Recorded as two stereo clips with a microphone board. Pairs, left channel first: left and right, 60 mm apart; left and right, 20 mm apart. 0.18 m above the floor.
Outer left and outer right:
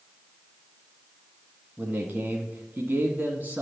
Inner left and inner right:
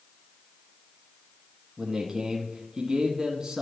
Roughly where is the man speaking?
Right.